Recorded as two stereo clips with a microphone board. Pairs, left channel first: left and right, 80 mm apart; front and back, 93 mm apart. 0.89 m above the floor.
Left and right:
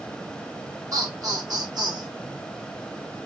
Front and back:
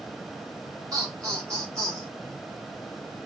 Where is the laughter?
130° right, 1.9 m; by 2.1 s 125° right, 2.5 m.